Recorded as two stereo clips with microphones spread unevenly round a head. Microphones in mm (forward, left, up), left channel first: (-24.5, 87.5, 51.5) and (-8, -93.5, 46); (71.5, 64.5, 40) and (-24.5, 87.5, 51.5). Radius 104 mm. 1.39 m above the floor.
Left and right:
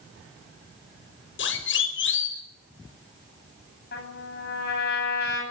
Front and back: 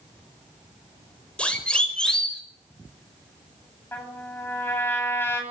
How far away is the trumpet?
About 10 m.